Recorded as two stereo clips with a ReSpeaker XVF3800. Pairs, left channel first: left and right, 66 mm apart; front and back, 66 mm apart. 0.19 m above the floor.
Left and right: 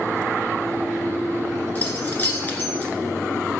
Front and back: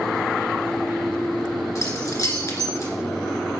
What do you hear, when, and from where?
1.8 s keys jangling: 30° left, 1.6 m